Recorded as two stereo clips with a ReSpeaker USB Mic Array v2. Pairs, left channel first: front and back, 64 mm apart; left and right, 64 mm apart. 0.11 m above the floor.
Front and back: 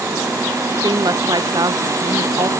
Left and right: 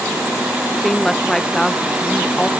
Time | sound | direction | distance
0.8 | a woman speaking | 175° left | ?